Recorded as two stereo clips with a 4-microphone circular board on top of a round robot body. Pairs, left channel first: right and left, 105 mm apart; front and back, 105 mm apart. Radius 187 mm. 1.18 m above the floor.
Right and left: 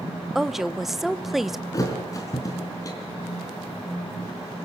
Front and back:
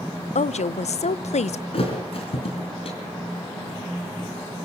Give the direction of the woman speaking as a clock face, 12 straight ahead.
12 o'clock.